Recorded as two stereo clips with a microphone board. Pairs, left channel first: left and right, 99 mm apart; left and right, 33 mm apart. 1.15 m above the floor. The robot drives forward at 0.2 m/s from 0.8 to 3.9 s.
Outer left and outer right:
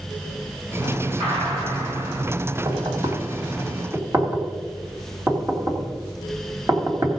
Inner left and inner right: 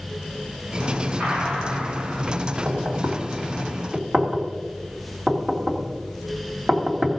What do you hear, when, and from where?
1.2 s a gunshot: 70° right (ahead or behind), 5.5 m
2.6 s knocking: 40° right (ahead or behind), 2 m